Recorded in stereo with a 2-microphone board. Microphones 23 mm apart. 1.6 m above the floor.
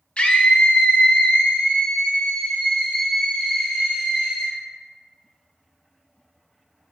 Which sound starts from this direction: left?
A scream, at 0.2 s.